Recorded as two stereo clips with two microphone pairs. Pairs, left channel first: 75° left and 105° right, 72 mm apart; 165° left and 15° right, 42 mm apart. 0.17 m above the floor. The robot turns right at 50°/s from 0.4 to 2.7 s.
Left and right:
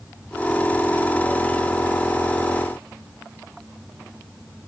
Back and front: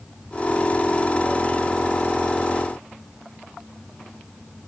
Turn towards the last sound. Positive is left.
No sound to turn to.